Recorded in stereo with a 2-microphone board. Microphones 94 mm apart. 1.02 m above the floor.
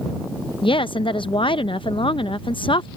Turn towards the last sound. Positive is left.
turn(degrees=70)  # may be behind; listen again after turning